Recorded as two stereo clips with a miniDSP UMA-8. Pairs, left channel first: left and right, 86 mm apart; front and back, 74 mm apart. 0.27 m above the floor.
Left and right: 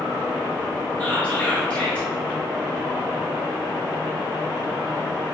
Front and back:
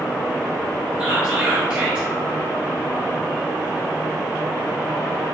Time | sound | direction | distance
1.0 | whispering | 130° left | 1.2 m